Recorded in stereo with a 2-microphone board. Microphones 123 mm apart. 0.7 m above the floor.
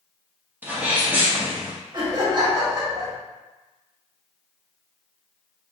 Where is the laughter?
35° right (ahead or behind), 1.3 m.